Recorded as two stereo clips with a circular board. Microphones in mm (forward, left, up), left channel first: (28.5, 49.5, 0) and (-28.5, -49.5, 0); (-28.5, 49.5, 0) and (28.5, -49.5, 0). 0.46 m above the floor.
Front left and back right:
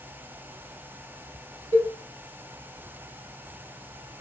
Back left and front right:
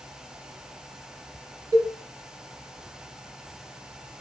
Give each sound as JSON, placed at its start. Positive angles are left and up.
{"t": 1.7, "sound": "a cowbell", "azimuth_deg": -120, "distance_m": 2.5}